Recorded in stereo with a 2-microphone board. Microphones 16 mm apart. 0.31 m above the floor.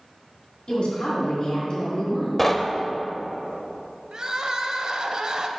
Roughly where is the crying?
Right.